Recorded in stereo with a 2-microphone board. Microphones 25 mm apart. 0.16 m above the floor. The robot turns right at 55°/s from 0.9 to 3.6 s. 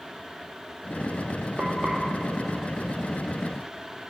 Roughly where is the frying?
Right.